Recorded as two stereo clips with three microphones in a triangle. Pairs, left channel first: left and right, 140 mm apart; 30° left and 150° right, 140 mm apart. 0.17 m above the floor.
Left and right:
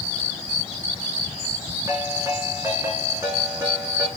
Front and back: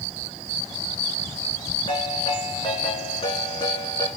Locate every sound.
1.9 s a ringtone: 25° right, 6.5 m